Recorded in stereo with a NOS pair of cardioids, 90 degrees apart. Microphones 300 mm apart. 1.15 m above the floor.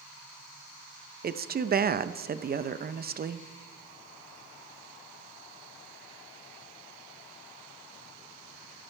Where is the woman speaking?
30° right, 0.8 m.